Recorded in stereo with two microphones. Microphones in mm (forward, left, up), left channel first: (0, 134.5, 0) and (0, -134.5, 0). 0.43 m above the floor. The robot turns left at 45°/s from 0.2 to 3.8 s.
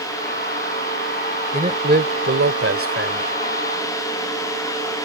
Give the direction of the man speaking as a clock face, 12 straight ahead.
1 o'clock.